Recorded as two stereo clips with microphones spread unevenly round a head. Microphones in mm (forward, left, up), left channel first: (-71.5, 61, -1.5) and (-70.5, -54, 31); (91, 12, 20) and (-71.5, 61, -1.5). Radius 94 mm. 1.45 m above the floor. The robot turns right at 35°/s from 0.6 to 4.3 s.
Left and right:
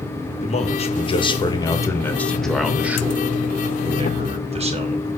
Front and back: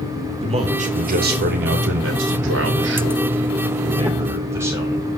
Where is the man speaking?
110° left, 2.5 m; by 5.1 s 120° right, 2.5 m.